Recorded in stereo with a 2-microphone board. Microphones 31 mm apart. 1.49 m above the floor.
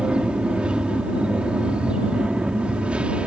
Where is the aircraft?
35° right (ahead or behind); by 3.3 s 40° right (ahead or behind).